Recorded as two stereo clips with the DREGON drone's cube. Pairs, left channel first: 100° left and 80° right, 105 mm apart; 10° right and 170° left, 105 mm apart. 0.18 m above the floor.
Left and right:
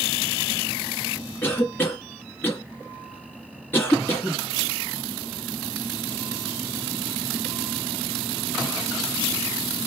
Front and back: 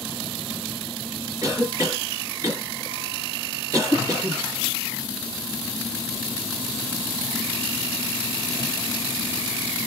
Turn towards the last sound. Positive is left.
turn(degrees=155)